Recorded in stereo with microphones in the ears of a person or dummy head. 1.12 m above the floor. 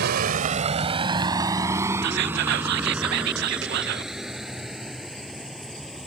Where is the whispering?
65° right (ahead or behind).